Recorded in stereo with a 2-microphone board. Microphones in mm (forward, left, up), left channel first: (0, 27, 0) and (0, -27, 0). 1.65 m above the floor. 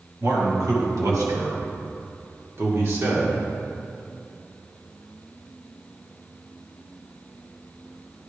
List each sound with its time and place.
0.2 s a man speaking: 80° right, 2 m; by 3.4 s 45° right (ahead or behind), 1.6 m